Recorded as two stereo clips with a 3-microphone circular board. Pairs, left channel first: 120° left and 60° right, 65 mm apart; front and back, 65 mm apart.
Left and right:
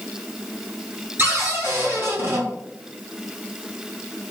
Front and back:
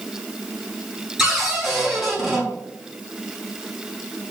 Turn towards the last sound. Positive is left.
turn(degrees=-95)